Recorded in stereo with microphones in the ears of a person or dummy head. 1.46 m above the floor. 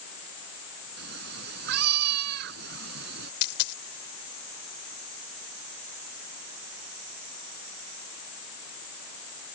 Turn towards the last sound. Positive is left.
turn(degrees=65)  # may be behind; listen again after turning